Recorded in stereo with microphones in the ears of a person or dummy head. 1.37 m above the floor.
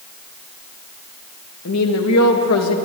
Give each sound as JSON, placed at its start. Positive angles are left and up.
{"t": 1.6, "sound": "a woman speaking", "side_deg": 85, "distance_m": 1.7}